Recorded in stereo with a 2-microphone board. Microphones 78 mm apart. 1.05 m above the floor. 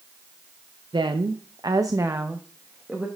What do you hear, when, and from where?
0.9 s a woman speaking: 80° right, 0.6 m; by 3.1 s 10° right (ahead or behind), 1.1 m